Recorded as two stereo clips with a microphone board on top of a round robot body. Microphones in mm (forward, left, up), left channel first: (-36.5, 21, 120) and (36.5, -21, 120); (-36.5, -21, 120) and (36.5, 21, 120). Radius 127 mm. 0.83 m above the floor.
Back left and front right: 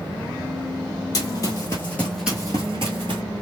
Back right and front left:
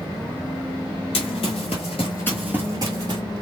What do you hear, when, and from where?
1.1 s running footsteps: 160° right, 1.3 m; by 3.2 s straight ahead, 1.1 m